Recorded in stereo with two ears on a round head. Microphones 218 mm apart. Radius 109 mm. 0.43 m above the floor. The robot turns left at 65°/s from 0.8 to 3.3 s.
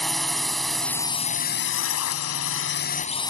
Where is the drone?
Straight behind; by 3.3 s 15° left.